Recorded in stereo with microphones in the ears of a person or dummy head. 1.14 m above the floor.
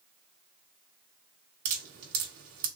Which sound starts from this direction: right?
Dripping, at 1.6 s.